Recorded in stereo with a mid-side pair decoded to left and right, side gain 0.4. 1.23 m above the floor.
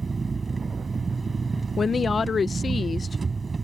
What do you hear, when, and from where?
0.0 s an engine running: 30° right
1.8 s a woman speaking: 45° left